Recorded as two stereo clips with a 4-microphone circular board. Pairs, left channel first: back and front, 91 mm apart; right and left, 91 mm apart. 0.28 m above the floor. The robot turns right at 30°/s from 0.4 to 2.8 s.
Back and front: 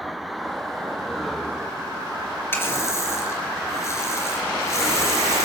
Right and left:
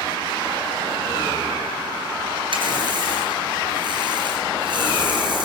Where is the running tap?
115° left, 2.5 m; by 5.5 s 120° left, 2.5 m.